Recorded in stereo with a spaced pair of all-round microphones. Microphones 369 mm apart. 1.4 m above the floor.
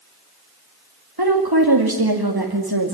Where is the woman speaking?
85° right, 2.5 m.